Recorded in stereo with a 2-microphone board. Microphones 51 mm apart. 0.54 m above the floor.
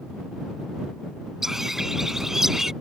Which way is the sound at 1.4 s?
10° right (ahead or behind).